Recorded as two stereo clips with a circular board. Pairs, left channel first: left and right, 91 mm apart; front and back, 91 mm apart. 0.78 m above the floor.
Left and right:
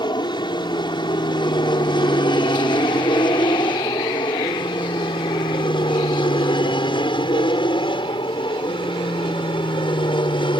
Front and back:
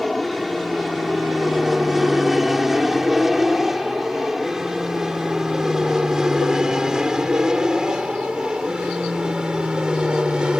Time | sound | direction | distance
0.0 | an aircraft | 90° left | ?